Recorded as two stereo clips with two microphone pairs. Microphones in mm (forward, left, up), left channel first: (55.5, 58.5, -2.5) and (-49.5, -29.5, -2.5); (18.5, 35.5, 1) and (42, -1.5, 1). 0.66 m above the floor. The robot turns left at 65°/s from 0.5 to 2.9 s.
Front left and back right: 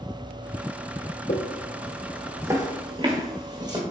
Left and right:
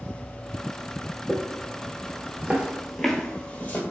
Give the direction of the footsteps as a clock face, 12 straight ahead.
11 o'clock.